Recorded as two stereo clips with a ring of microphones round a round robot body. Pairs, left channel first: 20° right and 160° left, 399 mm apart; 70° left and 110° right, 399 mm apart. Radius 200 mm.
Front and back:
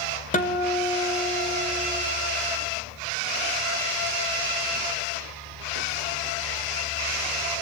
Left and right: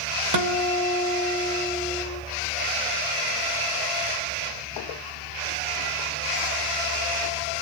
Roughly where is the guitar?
Right.